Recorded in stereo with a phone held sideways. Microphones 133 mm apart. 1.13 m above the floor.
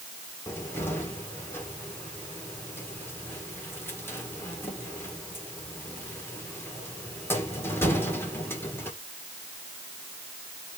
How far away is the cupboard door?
About 1.8 m.